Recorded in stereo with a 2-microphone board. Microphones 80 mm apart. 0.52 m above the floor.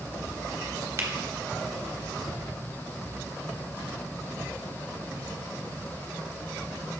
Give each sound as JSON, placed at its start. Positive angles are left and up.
{"t": 1.0, "sound": "a finger snap", "side_deg": -40, "distance_m": 1.3}